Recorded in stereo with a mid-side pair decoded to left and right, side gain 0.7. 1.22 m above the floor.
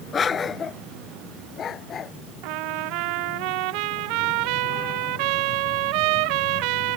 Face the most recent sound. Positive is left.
turn(degrees=-70)